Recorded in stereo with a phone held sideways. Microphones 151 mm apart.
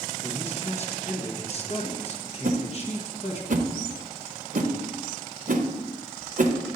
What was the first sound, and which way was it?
A man speaking, 40° left (ahead or behind).